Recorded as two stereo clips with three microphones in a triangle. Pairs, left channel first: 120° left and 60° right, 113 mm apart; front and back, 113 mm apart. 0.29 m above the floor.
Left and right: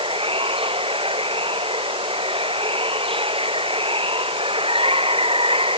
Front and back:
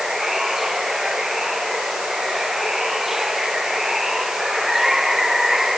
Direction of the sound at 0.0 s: 95° right.